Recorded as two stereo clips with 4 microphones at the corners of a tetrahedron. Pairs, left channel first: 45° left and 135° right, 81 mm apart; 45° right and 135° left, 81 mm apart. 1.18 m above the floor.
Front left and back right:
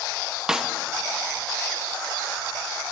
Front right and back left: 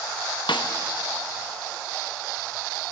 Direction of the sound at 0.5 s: 50° right.